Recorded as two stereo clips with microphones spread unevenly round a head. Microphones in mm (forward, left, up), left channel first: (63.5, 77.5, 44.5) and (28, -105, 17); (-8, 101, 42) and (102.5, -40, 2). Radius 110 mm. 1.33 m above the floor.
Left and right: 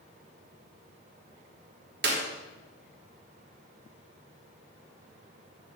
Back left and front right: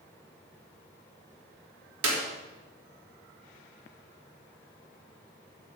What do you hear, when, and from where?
2.0 s a clap: 70° right, 3 m